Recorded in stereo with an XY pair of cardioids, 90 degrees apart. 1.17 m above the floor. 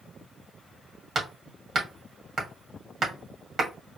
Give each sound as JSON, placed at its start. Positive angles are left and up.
{"t": 1.1, "sound": "hammering", "azimuth_deg": -50, "distance_m": 1.9}